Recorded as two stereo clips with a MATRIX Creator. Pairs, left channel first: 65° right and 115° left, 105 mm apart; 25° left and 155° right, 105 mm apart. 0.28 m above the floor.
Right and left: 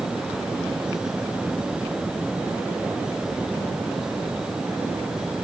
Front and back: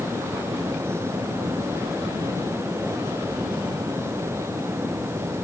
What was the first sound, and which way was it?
Only background noise.